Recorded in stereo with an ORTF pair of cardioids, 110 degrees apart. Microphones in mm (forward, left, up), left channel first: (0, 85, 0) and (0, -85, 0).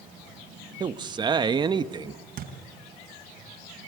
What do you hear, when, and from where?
0.8 s a man speaking: 25° right, 0.9 m
2.4 s a thud: 60° right, 3.5 m